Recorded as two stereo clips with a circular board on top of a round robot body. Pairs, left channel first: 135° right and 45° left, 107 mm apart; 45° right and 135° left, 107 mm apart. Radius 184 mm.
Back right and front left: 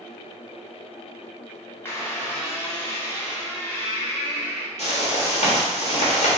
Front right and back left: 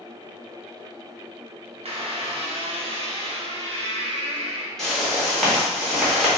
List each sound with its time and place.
1.9 s a squeak: 155° left, 0.9 m
4.8 s a whoosh: 135° right, 1.1 m